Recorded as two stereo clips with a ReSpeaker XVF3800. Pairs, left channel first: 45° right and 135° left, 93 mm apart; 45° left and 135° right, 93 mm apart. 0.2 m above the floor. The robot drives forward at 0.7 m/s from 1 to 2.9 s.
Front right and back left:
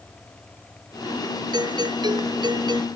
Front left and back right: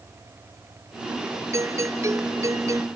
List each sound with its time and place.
1.5 s a doorbell: 170° left